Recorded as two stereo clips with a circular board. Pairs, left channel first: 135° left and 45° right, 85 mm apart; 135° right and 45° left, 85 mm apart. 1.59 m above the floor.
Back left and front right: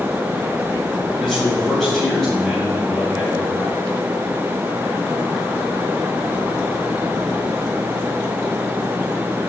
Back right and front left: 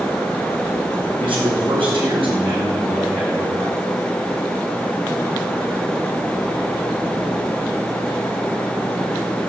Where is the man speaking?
50° left, 9.5 m; by 3.8 s 40° left, 8 m.